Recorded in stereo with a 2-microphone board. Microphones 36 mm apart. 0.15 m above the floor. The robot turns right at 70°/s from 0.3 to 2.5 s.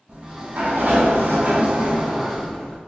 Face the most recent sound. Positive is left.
turn(degrees=10)